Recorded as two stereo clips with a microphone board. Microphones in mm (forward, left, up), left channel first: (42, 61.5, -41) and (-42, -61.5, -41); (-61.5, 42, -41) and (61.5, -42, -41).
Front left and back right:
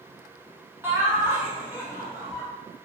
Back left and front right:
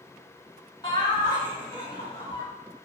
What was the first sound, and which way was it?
Laughter, 175° left.